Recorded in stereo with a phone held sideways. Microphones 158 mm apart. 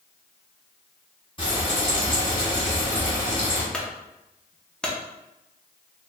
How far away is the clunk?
About 0.5 m.